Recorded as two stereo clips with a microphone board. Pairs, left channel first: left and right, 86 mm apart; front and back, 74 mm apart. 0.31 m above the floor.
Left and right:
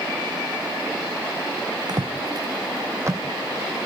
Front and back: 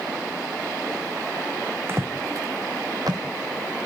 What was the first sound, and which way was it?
Footsteps, 125° right.